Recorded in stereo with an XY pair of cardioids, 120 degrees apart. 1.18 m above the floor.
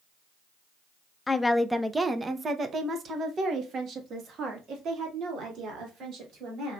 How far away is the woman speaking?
About 0.6 m.